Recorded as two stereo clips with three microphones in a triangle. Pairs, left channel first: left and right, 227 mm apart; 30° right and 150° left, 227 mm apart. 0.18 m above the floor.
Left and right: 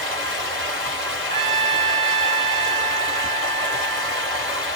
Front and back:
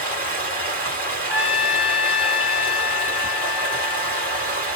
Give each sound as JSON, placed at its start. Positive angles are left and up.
{"t": 0.0, "sound": "running water", "azimuth_deg": -110, "distance_m": 2.5}
{"t": 1.3, "sound": "a trumpet", "azimuth_deg": -100, "distance_m": 2.5}